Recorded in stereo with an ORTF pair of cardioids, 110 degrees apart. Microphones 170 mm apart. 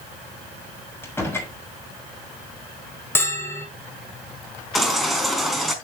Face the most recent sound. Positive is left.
turn(degrees=0)